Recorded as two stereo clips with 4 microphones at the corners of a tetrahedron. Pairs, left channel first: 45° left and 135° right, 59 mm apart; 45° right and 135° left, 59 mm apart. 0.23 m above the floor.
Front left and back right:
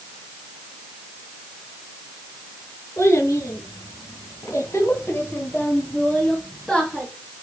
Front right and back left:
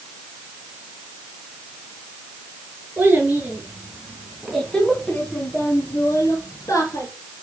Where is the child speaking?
75° left, 3 m; by 7.1 s 50° right, 3 m.